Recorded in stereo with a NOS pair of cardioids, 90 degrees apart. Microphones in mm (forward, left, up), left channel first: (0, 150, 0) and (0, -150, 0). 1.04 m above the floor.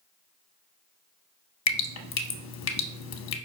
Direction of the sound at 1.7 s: 60° left.